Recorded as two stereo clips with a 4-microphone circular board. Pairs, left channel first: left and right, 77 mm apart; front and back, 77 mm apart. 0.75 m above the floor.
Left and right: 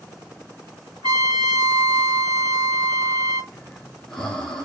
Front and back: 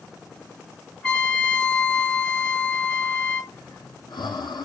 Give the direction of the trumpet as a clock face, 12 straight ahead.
3 o'clock.